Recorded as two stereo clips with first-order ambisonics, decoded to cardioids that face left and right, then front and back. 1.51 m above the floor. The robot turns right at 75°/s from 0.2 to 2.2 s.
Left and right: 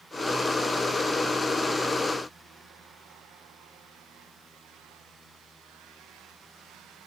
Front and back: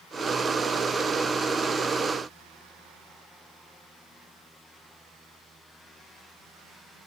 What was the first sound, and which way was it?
Only background noise.